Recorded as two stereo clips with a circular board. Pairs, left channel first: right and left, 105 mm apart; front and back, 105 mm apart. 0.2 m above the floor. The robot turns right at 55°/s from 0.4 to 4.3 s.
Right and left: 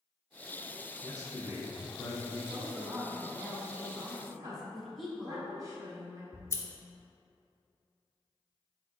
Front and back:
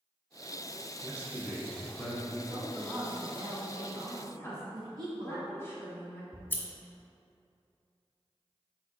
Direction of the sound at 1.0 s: 135° right.